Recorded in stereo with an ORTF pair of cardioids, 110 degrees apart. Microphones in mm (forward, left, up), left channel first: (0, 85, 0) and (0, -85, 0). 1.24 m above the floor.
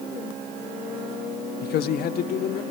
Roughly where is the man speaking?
Left.